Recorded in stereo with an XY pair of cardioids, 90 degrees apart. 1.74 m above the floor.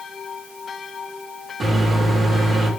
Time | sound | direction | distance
1.6 | a microwave | 45° right | 3.5 m